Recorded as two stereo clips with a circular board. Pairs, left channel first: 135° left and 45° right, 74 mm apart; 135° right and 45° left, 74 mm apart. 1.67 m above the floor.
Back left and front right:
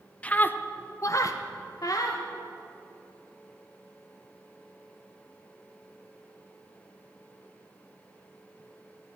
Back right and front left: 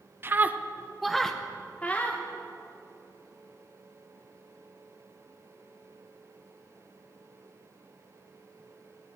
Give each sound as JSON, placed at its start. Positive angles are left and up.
{"t": 0.2, "sound": "a scream", "azimuth_deg": 75, "distance_m": 0.7}